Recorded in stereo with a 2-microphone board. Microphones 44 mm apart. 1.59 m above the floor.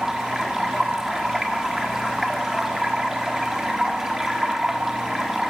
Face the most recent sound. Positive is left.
turn(degrees=-10)  # may be behind; listen again after turning